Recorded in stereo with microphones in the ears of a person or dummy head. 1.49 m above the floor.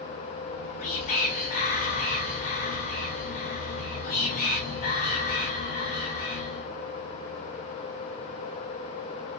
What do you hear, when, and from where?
0.5 s whispering: 45° left (ahead or behind), 0.8 m